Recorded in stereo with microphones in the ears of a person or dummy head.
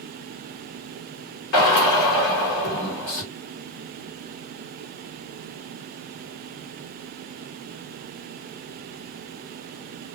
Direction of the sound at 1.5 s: 50° left (ahead or behind).